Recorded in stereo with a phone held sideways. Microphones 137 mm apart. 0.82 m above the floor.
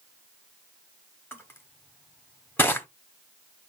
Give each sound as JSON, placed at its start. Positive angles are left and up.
{"t": 1.3, "sound": "crushing", "side_deg": 15, "distance_m": 1.1}